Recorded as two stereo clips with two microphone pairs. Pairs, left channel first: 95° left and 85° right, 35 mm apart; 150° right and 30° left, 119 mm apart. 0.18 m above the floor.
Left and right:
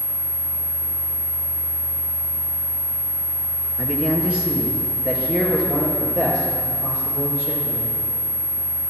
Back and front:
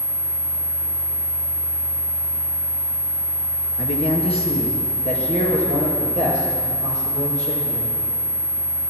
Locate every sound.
3.8 s a man speaking: 145° right, 2.5 m; by 7.9 s 155° right, 7.5 m